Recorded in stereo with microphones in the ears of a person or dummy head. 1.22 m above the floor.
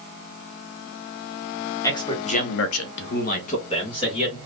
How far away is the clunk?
No clunk in this recording.